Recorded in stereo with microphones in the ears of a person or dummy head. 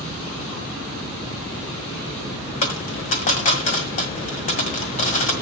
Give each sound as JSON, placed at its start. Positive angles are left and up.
{"t": 2.6, "sound": "a dropped coin", "side_deg": 35, "distance_m": 1.5}